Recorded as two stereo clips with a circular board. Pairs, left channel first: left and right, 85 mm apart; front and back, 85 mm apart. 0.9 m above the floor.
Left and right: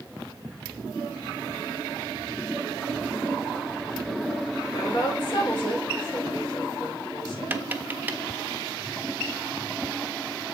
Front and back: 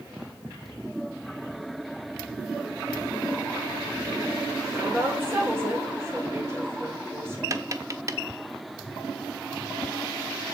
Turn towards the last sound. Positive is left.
turn(degrees=-150)